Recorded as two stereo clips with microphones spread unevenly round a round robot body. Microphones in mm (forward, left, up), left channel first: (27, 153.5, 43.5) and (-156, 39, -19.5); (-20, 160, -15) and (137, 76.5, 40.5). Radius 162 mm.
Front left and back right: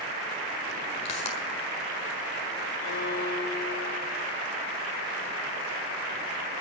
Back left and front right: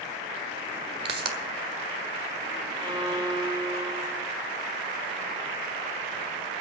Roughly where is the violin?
Ahead left.